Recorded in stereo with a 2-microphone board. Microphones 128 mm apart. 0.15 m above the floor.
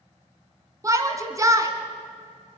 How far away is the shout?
About 1.9 m.